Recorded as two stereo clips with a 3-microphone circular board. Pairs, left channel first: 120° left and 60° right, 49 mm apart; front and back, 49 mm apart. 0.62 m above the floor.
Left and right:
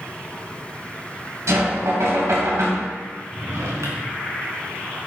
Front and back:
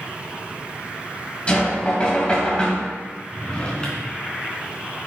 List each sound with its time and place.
1.5 s knocking: 65° right, 2.5 m
3.3 s a drawer: 70° right, 3 m